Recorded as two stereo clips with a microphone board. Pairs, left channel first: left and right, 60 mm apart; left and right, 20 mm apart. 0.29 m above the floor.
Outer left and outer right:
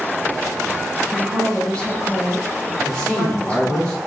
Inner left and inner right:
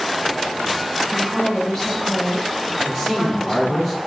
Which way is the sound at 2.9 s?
10° left (ahead or behind).